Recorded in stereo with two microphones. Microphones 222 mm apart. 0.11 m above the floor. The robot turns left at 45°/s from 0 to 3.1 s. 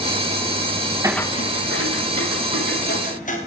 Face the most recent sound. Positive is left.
turn(degrees=35)  # may be behind; listen again after turning